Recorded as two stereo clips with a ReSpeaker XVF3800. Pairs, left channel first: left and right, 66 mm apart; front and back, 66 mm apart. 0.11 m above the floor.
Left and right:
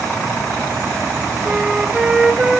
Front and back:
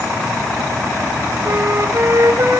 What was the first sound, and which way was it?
A flute, 165° right.